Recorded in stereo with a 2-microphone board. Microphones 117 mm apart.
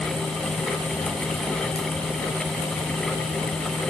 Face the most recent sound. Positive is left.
turn(degrees=60)  # may be behind; listen again after turning